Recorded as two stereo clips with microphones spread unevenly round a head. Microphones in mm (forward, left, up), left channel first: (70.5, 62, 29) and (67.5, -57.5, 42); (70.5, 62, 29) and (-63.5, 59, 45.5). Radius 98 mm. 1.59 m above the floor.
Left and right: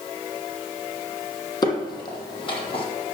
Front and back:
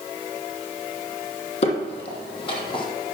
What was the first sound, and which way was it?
Footsteps, 35° left.